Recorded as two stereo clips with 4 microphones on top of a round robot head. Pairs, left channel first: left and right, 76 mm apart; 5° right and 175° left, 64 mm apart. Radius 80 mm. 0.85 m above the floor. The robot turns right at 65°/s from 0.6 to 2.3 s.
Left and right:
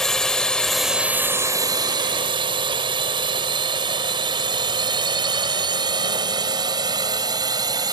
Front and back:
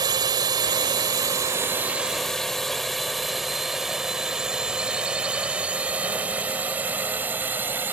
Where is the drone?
175° left; by 7.9 s 120° right.